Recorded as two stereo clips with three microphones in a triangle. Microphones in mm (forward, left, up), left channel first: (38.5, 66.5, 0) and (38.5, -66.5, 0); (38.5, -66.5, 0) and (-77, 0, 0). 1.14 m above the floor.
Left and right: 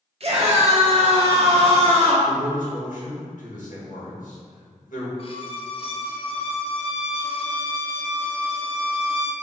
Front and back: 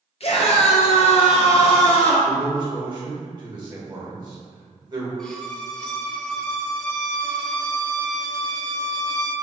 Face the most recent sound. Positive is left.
turn(degrees=55)